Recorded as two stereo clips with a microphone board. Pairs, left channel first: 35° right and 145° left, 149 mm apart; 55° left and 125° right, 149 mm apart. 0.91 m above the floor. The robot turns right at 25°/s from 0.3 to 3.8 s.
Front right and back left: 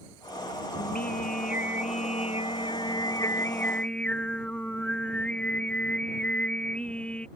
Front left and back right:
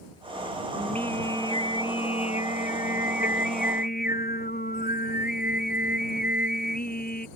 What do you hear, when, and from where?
0.8 s singing: 25° right; by 7.3 s 50° left